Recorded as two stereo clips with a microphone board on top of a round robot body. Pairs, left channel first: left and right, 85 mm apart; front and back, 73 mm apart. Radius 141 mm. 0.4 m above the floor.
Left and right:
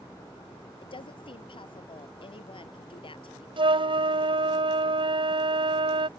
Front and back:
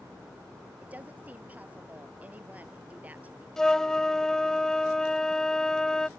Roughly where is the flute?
Right.